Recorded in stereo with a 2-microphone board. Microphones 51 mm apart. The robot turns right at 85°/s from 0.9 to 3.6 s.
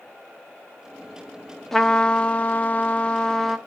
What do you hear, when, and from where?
1.7 s a trumpet: 5° left (ahead or behind), 0.8 m